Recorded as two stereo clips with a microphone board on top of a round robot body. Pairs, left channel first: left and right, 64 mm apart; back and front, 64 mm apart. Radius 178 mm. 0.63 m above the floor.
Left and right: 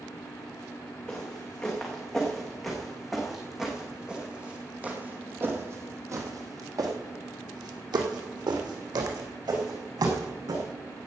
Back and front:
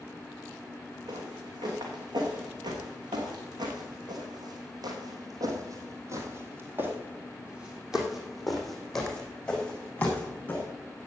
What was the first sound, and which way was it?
Footsteps, 10° left.